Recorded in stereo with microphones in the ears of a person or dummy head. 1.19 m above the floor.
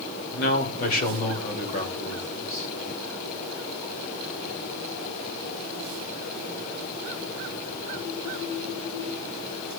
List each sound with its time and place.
0.3 s a man speaking: 50° left (ahead or behind), 2 m; by 2.7 s 45° left (ahead or behind), 3.5 m